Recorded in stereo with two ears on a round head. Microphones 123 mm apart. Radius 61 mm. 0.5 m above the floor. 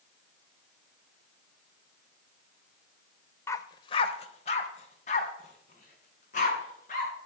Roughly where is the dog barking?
Centre.